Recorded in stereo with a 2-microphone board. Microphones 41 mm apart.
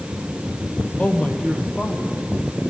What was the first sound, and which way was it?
A man speaking, 30° left (ahead or behind).